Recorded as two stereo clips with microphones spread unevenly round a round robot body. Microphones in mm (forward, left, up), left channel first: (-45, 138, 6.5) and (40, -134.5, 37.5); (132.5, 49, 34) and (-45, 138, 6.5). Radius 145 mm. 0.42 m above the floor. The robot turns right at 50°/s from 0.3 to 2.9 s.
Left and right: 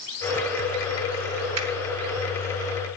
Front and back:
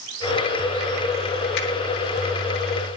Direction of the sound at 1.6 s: 50° right.